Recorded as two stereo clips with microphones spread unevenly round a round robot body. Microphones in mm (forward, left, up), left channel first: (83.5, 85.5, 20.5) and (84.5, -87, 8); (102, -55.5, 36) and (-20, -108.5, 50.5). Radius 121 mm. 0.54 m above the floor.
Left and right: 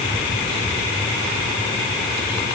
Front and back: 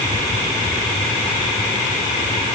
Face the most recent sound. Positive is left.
No sound to turn to.